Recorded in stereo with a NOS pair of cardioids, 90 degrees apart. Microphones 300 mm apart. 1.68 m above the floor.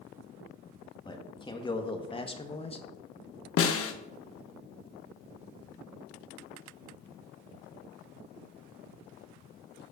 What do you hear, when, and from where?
1.1 s a man speaking: 15° left, 2 m; by 2.9 s 20° left, 1.3 m
3.6 s a snare drum: 50° left, 1.2 m